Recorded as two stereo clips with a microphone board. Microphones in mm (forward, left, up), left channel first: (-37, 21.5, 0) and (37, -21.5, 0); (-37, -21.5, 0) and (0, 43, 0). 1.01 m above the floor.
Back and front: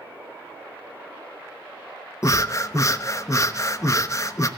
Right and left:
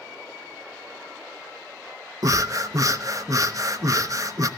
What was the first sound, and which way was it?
Breathing, 100° left.